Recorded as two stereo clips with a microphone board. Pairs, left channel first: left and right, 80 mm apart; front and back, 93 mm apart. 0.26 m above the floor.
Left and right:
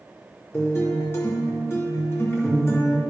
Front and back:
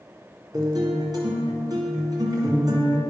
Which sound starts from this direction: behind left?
A guitar, at 0.5 s.